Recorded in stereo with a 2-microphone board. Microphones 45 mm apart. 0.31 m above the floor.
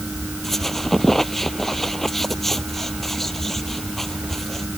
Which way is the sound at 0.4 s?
5° left (ahead or behind).